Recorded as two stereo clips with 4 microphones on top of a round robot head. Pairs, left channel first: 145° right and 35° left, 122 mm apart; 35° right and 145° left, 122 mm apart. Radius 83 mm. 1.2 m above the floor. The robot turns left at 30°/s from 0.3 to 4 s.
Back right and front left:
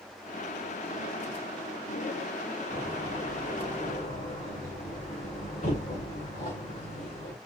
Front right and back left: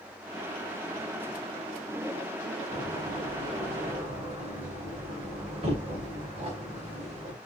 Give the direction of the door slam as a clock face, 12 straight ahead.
4 o'clock.